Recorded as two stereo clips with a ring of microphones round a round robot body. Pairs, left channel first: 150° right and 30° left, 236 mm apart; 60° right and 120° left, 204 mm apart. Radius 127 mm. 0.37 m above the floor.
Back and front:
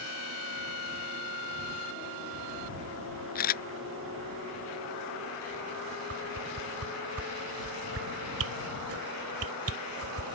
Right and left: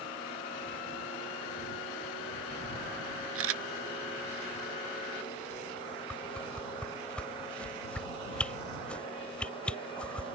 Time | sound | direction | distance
3.4 | a camera shutter | 155° left | ?
6.1 | a whoosh | 25° left | ?